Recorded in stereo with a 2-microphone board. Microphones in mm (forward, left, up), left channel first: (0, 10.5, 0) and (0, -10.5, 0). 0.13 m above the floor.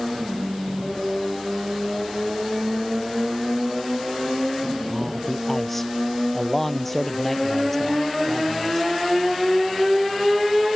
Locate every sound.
4.9 s a man speaking: 10° left (ahead or behind)